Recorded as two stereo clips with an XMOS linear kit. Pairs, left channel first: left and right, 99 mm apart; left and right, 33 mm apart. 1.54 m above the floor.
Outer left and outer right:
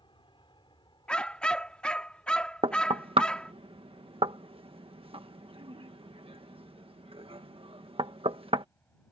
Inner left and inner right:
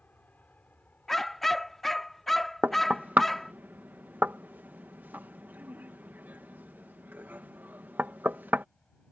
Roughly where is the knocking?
Right.